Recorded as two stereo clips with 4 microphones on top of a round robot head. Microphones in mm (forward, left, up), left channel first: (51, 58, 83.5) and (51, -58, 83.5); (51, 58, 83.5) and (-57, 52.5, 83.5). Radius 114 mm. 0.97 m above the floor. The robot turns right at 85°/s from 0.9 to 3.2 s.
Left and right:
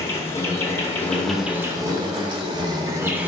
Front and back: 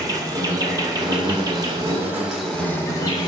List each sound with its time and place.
0.0 s an insect: 145° left, 1.7 m; by 3.3 s 20° right, 1.7 m